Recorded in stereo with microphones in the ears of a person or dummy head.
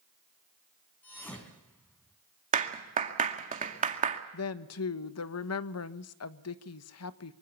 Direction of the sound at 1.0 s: 10° left (ahead or behind).